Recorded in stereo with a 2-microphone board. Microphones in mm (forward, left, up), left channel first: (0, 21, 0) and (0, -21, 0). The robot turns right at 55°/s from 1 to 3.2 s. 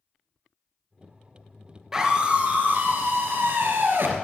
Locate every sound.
1.9 s a scream: 165° right, 2.5 m; by 4.1 s 95° right, 2.5 m